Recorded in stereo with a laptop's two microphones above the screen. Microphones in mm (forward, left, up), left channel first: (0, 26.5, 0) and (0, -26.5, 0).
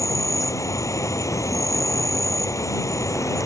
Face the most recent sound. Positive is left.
turn(degrees=70)  # may be behind; listen again after turning